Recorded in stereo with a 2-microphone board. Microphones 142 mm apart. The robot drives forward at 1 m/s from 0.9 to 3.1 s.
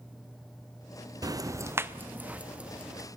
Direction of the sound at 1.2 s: 25° right (ahead or behind).